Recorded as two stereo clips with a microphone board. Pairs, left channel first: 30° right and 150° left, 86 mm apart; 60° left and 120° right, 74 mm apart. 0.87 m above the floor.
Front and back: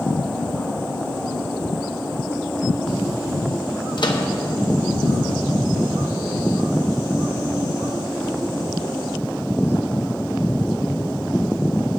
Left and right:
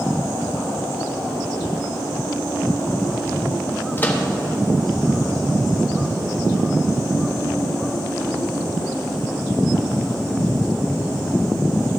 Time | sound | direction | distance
4.0 | a microwave | straight ahead | 0.8 m